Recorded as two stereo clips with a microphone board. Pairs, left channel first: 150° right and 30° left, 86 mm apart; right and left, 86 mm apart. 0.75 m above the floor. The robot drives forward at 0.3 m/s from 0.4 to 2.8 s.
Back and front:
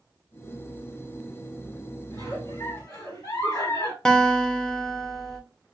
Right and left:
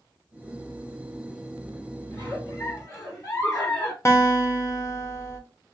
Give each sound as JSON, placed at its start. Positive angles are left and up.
{"t": 2.1, "sound": "a giggle", "azimuth_deg": -130, "distance_m": 1.7}
{"t": 4.0, "sound": "a guitar", "azimuth_deg": -75, "distance_m": 0.6}